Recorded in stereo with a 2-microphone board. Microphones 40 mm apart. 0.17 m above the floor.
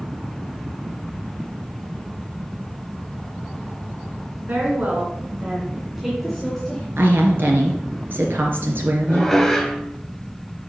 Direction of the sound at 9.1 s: 5° left (ahead or behind).